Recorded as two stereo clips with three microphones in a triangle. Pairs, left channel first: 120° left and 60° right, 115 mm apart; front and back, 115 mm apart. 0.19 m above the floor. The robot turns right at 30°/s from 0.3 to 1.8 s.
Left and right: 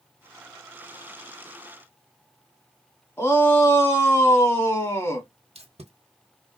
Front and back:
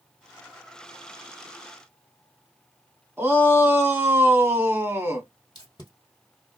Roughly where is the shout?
Behind left.